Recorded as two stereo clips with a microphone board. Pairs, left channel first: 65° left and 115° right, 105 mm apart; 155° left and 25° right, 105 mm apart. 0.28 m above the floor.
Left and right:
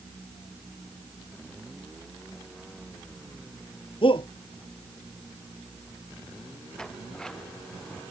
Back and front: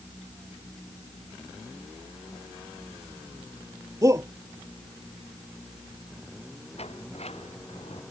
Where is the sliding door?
150° left.